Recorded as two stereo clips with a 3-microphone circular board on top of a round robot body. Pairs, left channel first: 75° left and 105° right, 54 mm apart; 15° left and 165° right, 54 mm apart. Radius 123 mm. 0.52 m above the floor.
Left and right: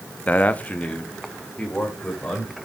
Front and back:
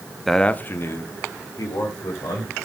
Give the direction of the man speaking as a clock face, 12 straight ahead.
9 o'clock.